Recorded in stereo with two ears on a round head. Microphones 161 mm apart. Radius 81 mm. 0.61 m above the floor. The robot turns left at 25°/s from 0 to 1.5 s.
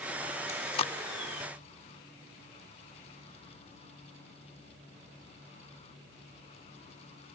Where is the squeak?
No squeak in this recording.